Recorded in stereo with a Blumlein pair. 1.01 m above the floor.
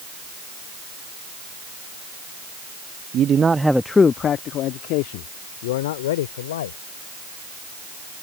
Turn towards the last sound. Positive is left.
turn(degrees=60)